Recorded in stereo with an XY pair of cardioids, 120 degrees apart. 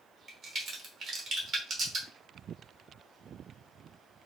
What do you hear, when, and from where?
0.3 s a crack: 45° right, 1.7 m